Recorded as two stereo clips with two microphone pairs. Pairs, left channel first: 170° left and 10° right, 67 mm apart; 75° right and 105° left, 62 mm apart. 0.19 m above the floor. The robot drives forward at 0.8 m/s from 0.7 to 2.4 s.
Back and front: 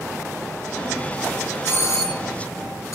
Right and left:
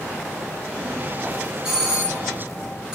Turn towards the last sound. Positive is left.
turn(degrees=180)